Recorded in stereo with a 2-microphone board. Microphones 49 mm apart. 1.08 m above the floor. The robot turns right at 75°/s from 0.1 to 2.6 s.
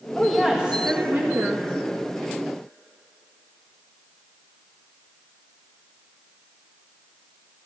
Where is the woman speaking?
170° left, 1.8 m; by 1.6 s 80° right, 1.8 m.